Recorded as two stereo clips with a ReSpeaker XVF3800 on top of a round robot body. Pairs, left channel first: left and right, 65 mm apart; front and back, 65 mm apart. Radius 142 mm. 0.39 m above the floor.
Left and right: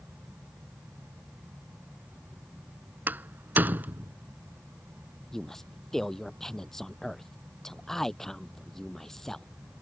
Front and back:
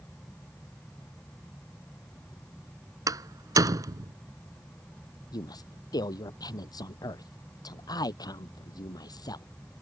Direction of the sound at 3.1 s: 155° right.